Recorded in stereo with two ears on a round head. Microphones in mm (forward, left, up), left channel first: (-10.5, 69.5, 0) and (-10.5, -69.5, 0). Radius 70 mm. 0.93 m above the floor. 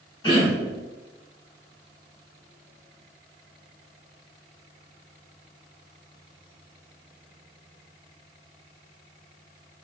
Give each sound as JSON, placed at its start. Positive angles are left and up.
{"t": 0.2, "sound": "throat clearing", "side_deg": 30, "distance_m": 1.3}